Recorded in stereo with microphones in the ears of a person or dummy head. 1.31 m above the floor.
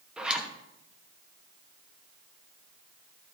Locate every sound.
0.2 s a zipper: centre (ahead or behind), 1.0 m